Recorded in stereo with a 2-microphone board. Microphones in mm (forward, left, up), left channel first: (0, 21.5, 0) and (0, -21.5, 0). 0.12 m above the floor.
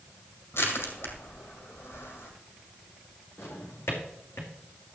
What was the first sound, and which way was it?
Crushing, 70° left (ahead or behind).